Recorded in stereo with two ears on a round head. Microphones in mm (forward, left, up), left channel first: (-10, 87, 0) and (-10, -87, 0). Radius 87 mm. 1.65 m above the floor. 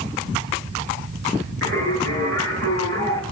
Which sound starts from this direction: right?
Singing, at 1.6 s.